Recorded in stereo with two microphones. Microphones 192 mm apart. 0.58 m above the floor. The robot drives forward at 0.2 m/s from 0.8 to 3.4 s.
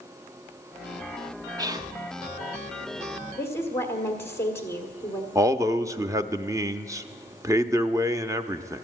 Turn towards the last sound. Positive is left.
turn(degrees=-15)  # may be behind; listen again after turning